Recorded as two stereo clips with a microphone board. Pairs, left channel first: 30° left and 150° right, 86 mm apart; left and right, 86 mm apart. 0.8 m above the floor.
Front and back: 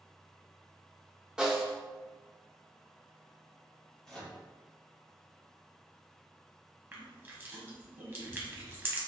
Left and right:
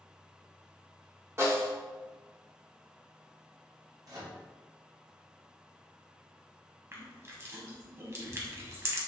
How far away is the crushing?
About 0.7 m.